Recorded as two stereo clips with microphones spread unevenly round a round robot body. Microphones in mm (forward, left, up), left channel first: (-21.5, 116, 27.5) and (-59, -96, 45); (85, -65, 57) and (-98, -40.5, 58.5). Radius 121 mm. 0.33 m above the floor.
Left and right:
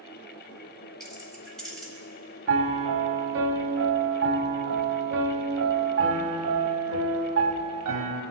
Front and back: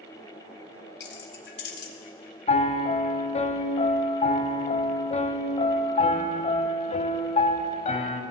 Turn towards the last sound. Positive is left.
turn(degrees=-65)